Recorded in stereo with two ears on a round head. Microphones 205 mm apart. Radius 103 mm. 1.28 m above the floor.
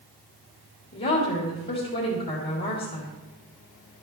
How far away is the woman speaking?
About 3 m.